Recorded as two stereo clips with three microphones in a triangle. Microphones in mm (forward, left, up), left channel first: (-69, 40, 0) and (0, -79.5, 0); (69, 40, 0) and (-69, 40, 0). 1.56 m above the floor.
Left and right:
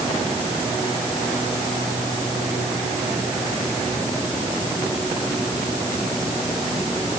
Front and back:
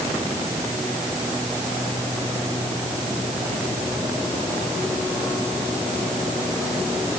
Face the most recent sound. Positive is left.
No sound to turn to.